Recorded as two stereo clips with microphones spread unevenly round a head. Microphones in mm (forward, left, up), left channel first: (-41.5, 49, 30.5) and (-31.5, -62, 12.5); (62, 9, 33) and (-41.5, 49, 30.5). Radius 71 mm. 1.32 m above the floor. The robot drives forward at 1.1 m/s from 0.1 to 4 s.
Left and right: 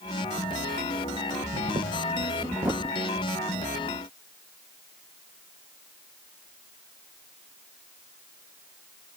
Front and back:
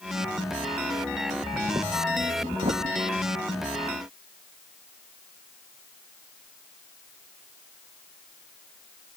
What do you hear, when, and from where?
1.3 s breathing: 105° right; by 3.2 s 165° right